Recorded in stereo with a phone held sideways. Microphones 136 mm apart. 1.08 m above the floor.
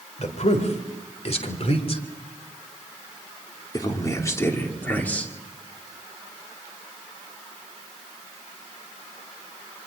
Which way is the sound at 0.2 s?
60° left (ahead or behind).